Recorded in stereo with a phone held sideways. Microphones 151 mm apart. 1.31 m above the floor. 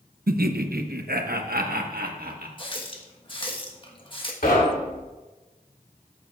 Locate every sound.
0.3 s laughter: 80° right, 0.7 m; by 2.5 s 75° right (ahead or behind), 1.7 m
2.6 s a running tap: 35° left (ahead or behind), 1.3 m
4.4 s knocking: 75° left (ahead or behind), 2.5 m